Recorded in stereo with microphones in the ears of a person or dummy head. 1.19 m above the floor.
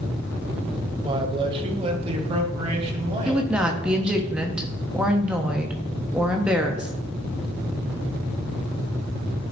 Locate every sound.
1.0 s a man speaking: 25° right (ahead or behind), 1.0 m; by 4.2 s 35° right (ahead or behind), 2.5 m
3.2 s a woman speaking: 5° right (ahead or behind), 1.1 m